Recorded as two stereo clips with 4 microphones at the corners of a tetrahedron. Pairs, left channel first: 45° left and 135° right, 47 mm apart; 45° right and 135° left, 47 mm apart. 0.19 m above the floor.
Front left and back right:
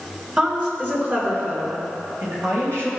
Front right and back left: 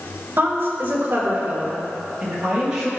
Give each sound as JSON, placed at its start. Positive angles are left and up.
{"t": 0.4, "sound": "a woman speaking", "azimuth_deg": 165, "distance_m": 2.5}